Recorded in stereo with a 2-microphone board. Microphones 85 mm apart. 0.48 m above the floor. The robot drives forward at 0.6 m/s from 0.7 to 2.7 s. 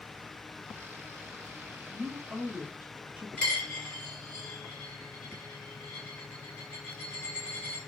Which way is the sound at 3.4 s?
10° left (ahead or behind).